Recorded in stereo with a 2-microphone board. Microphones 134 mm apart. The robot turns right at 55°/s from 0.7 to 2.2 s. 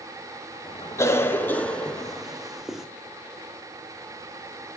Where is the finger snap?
I don't hear a finger snap.